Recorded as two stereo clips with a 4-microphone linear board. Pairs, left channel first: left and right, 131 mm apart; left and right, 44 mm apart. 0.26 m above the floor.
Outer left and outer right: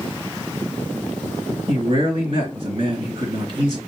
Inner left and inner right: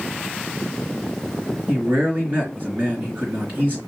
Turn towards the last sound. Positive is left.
turn(degrees=-40)  # may be behind; listen again after turning